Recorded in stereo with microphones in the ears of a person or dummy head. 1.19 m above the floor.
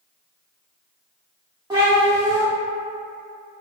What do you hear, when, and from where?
1.7 s a cat meowing: 15° right (ahead or behind), 1.0 m